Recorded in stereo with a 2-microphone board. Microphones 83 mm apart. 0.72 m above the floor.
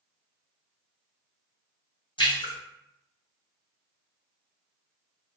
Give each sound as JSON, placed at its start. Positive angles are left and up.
{"t": 2.2, "sound": "a splash", "side_deg": 80, "distance_m": 1.7}